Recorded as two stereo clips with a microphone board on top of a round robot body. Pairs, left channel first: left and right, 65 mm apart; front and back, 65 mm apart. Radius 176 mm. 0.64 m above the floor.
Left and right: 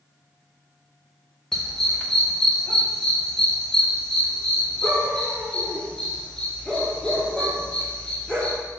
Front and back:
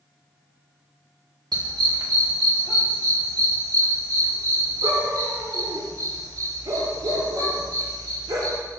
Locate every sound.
1.5 s a dog barking: 170° left, 1.4 m; by 8.6 s 165° left, 5.5 m